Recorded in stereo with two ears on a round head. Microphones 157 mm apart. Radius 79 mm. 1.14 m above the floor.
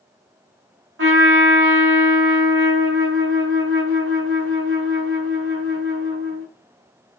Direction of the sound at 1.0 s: 80° right.